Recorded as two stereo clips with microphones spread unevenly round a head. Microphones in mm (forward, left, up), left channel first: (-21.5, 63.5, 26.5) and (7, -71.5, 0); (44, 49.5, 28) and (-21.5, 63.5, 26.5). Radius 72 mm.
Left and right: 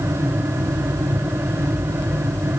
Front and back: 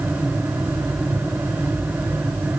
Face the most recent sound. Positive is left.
No sound to turn to.